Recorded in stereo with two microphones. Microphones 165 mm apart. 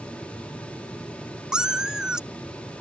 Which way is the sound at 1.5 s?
5° right (ahead or behind).